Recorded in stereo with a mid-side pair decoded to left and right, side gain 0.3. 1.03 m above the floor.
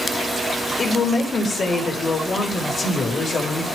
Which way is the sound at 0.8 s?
60° left.